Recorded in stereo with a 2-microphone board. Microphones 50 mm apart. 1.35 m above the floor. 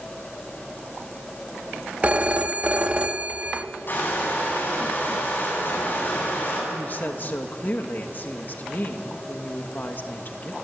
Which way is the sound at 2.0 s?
30° right (ahead or behind).